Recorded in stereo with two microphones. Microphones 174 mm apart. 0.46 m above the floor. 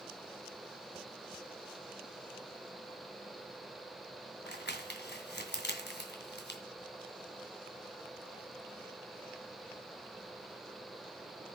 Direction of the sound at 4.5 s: 70° left (ahead or behind).